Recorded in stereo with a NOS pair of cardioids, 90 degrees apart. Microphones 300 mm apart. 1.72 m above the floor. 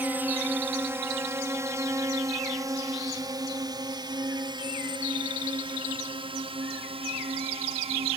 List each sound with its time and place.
0.0 s a drone: 5° right; by 8.2 s 20° right